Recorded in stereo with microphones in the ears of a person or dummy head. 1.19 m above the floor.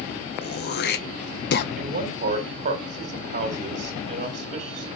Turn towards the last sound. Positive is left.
turn(degrees=-35)  # may be behind; listen again after turning